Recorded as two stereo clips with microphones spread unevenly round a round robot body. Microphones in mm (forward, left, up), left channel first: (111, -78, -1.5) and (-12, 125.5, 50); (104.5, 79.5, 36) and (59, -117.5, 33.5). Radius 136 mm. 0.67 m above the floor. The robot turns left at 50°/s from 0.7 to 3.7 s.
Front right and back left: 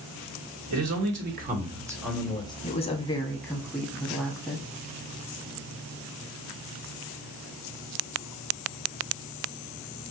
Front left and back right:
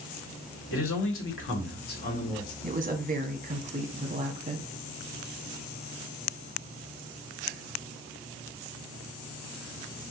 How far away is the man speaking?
About 1.5 m.